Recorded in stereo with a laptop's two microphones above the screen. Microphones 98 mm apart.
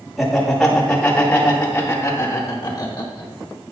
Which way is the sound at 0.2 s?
Centre (ahead or behind).